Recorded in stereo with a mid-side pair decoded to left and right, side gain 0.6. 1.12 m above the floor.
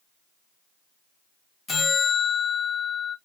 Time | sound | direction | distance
1.7 | a bell | 30° left | 1.2 m